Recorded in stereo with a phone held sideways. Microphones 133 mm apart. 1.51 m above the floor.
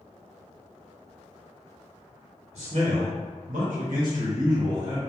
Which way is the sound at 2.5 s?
50° right (ahead or behind).